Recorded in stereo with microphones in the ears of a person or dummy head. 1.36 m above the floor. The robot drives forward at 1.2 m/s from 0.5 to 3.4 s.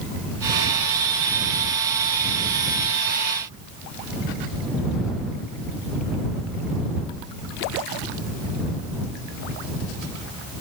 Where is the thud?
No thud in this recording.